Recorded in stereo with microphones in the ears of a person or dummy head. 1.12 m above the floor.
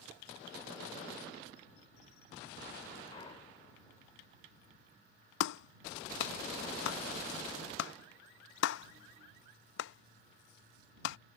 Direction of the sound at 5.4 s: 75° left (ahead or behind).